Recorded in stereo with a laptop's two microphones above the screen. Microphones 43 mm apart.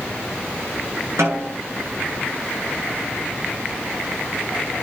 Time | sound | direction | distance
1.2 | a snare drum | 75° right (ahead or behind) | 10 m